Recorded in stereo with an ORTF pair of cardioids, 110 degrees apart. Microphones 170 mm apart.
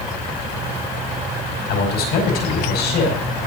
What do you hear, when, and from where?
1.7 s a man speaking: 70° left, 5.5 m